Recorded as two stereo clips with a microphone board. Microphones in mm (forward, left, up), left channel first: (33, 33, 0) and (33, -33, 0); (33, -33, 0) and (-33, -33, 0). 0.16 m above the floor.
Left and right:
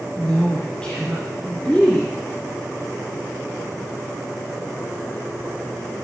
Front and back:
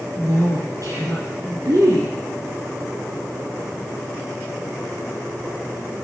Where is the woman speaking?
165° left, 3 m.